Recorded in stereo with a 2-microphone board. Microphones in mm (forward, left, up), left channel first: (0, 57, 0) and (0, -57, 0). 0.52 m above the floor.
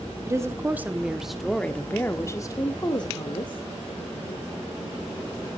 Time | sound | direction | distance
0.2 | a woman speaking | 25° right (ahead or behind) | 1.4 m